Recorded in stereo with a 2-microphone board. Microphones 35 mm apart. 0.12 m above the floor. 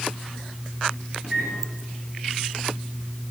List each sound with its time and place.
1.2 s a microwave: 20° right (ahead or behind), 6 m